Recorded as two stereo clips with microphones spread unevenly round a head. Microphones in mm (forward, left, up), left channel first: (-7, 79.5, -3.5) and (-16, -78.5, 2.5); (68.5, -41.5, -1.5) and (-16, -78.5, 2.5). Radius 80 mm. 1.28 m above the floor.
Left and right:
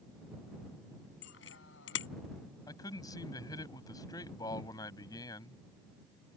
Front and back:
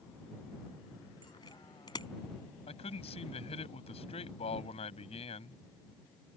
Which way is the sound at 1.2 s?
90° left.